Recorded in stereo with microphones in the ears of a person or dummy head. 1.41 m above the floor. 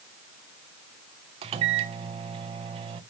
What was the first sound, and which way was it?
A microwave, 35° right (ahead or behind).